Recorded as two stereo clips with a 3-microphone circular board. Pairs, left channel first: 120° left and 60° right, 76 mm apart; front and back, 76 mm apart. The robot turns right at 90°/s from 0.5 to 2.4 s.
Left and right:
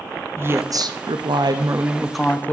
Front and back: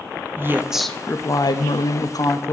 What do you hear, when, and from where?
0.4 s a woman speaking: 120° right, 0.5 m; by 2.5 s 55° left, 0.5 m